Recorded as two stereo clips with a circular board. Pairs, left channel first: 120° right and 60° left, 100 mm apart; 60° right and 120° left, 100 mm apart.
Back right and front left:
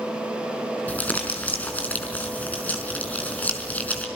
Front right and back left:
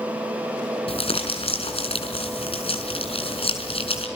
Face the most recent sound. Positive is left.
turn(degrees=-45)